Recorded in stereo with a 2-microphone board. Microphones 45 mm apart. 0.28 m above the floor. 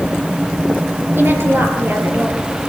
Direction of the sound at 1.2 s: 55° right (ahead or behind).